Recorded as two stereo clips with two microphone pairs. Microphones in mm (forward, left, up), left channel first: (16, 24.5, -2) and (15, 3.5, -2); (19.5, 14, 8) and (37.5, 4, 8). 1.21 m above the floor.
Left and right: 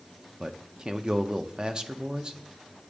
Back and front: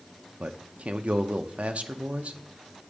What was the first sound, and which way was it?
A man speaking, 40° right.